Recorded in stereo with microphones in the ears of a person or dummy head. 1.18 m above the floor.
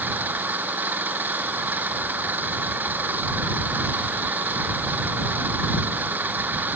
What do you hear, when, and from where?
0.0 s an engine running: 10° right (ahead or behind)